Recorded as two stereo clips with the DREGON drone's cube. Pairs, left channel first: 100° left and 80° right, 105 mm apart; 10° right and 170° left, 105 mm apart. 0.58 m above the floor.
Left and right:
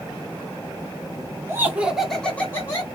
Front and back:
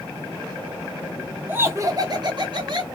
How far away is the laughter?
About 1.0 m.